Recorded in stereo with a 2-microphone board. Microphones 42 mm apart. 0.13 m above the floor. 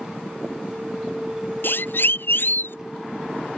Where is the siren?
60° left (ahead or behind).